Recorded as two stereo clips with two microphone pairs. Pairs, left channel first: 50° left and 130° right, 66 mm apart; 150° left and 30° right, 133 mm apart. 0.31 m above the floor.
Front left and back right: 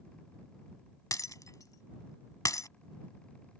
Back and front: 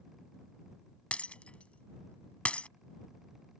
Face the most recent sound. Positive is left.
turn(degrees=70)